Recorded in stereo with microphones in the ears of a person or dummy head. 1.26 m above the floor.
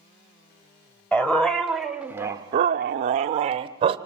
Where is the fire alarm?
I don't hear a fire alarm.